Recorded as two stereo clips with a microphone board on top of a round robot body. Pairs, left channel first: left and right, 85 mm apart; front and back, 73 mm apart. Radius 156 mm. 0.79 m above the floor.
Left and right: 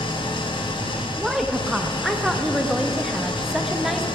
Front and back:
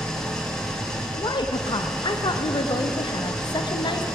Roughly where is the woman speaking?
Ahead.